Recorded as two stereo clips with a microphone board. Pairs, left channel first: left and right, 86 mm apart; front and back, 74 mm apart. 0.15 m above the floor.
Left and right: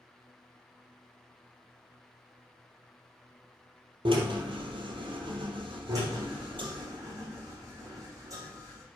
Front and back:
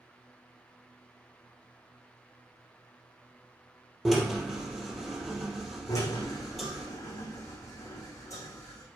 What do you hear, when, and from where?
4.0 s a drill: 90° right, 3 m
5.9 s a drill: 45° right, 6 m